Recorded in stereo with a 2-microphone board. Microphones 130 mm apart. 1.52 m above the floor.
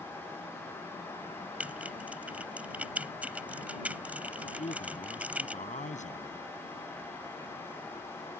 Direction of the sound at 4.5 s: 80° left.